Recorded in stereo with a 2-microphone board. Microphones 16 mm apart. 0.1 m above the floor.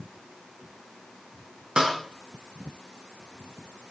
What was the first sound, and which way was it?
A snare drum, 55° right (ahead or behind).